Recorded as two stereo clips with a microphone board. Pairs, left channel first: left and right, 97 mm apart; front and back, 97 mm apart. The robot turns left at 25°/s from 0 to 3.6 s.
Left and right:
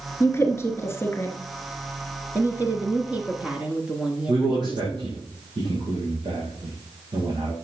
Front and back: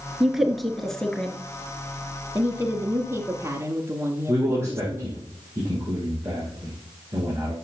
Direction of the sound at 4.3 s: 120° right.